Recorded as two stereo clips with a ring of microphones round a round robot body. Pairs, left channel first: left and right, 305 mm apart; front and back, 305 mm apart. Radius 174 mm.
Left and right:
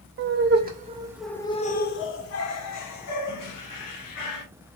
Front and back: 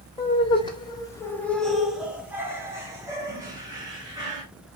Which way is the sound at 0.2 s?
70° right.